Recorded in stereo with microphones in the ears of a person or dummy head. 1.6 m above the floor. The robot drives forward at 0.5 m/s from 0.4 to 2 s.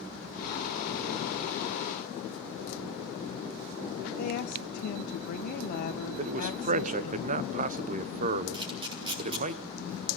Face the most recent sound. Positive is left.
turn(degrees=-25)  # may be behind; listen again after turning